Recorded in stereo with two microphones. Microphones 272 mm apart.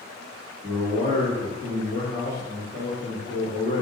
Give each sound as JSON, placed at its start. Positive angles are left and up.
{"t": 0.6, "sound": "a man speaking", "side_deg": -15, "distance_m": 1.8}